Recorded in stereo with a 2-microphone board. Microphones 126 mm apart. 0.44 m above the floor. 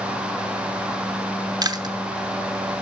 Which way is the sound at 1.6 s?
30° right (ahead or behind).